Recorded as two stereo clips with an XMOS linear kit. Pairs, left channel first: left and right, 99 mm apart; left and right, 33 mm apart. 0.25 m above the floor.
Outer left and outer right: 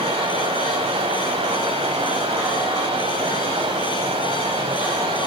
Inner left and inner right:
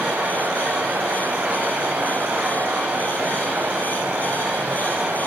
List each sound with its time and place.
0.0 s running water: 65° right (ahead or behind), 7.5 m